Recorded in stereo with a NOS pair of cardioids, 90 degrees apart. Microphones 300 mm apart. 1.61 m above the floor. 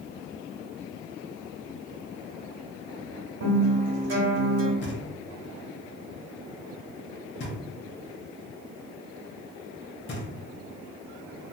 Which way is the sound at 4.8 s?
40° left.